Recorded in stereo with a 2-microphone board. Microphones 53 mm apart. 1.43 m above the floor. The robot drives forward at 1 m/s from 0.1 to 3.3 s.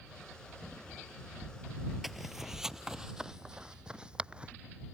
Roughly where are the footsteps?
Centre.